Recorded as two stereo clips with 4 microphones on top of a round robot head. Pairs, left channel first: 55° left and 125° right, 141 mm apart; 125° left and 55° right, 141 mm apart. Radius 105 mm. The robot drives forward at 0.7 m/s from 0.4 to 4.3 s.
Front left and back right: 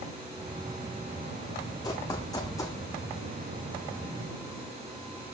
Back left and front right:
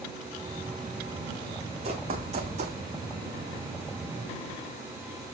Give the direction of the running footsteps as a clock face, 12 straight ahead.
12 o'clock.